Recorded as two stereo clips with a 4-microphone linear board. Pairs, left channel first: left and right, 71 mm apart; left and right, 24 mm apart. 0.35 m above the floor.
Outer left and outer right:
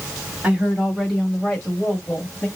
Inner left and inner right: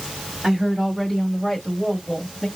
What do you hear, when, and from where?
0.4 s a woman speaking: 15° right (ahead or behind), 2 m; by 2.5 s 25° left (ahead or behind), 1.6 m